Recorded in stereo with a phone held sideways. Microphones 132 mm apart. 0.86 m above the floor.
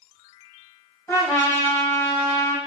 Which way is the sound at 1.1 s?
20° left (ahead or behind).